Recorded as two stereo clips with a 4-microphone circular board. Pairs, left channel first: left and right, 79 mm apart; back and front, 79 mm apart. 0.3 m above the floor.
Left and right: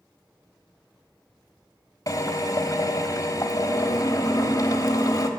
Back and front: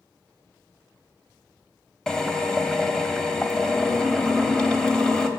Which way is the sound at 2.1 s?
100° left.